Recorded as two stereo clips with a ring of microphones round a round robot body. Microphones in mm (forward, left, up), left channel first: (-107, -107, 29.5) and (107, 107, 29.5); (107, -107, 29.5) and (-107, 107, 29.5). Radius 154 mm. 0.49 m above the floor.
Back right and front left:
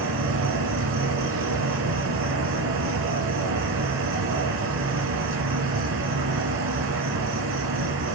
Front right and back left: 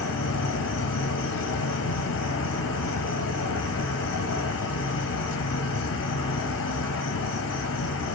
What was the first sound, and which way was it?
An insect, straight ahead.